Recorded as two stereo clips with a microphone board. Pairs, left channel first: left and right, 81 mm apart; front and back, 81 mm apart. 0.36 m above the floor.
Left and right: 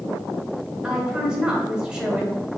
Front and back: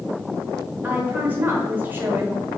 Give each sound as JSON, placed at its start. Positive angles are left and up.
{"t": 0.8, "sound": "a woman speaking", "azimuth_deg": -155, "distance_m": 1.2}